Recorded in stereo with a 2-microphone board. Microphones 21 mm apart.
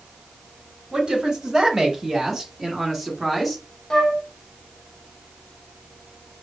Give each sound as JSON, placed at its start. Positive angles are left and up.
{"t": 0.9, "sound": "a woman speaking", "side_deg": -35, "distance_m": 1.9}
{"t": 3.9, "sound": "a flute", "side_deg": 30, "distance_m": 1.1}